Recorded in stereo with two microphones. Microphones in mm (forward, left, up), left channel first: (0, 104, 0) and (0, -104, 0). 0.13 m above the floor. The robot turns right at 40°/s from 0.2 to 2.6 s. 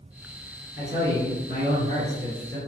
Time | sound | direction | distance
0.8 | a man speaking | 160° right | 1.9 m